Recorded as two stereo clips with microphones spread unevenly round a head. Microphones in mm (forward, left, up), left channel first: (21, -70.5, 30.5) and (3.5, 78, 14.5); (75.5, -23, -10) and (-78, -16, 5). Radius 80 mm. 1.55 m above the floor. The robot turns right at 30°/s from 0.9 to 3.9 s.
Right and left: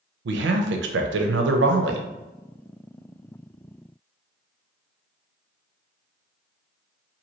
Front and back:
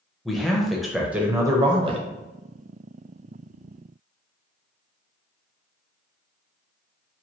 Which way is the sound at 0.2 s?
90° left.